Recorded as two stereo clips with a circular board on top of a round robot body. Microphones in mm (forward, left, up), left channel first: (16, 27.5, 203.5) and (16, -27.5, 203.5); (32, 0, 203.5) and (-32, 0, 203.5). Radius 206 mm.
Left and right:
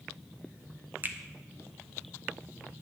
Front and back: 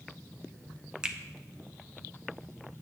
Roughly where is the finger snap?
Behind right.